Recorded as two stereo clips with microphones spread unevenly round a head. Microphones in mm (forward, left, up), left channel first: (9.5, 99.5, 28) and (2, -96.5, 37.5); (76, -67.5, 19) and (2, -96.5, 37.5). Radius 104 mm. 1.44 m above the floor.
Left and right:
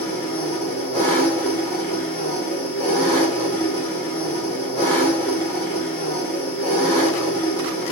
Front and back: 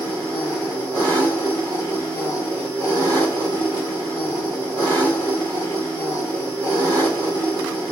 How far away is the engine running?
About 1.9 m.